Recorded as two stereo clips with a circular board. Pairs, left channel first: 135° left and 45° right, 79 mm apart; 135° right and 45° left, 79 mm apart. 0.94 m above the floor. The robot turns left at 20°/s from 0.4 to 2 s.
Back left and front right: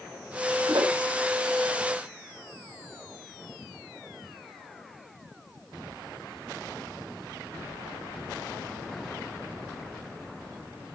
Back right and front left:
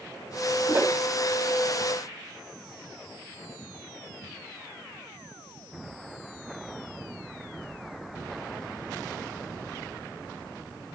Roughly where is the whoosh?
Ahead.